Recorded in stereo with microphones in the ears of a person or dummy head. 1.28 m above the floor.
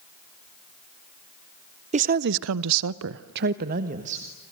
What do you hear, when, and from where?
1.9 s a woman speaking: 30° right (ahead or behind), 0.8 m; by 4.3 s 35° right (ahead or behind), 1.7 m